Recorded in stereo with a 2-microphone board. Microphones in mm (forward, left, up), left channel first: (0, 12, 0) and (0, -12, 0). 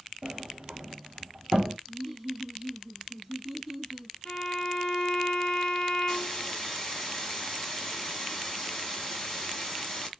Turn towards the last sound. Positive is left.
turn(degrees=20)  # may be behind; listen again after turning